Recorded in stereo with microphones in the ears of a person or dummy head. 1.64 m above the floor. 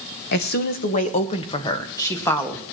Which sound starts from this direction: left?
A woman speaking, at 0.3 s.